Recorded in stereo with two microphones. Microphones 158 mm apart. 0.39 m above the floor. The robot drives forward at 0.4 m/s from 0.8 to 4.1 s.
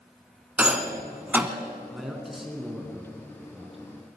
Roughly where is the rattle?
Centre.